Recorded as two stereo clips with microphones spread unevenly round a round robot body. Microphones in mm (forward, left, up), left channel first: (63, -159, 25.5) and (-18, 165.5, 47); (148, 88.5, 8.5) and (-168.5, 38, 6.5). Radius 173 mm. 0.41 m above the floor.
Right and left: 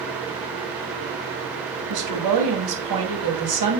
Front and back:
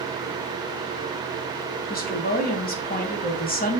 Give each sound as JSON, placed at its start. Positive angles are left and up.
{"t": 1.9, "sound": "a woman speaking", "azimuth_deg": 70, "distance_m": 2.5}